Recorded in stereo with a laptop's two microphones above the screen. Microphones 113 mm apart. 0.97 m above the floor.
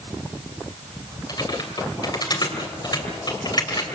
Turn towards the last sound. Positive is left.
turn(degrees=40)  # may be behind; listen again after turning